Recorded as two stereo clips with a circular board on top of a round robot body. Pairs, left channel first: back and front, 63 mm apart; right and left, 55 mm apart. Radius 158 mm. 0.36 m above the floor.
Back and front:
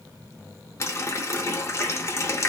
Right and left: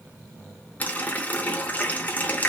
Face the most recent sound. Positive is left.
turn(degrees=-145)